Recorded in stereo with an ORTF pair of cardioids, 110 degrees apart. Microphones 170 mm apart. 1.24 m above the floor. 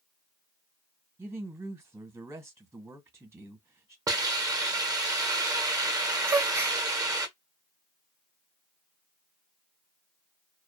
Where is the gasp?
15° right, 0.6 m.